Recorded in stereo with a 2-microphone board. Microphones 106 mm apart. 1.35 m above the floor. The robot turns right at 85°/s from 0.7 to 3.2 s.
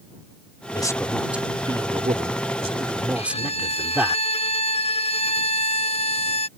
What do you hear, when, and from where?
0.7 s a man speaking: 140° left; by 4.2 s 10° right
3.1 s a violin: 65° left (ahead or behind); by 6.5 s 60° left (ahead or behind)